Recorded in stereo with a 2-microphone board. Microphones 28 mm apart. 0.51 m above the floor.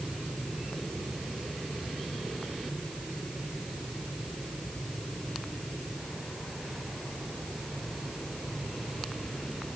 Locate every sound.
Only background noise.